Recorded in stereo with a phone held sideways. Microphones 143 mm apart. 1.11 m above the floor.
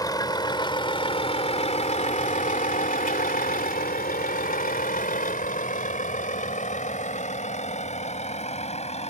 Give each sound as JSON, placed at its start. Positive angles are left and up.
{"t": 0.0, "sound": "a vehicle", "side_deg": 25}